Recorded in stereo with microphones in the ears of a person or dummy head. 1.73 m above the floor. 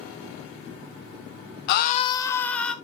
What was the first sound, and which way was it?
A scream, 60° left (ahead or behind).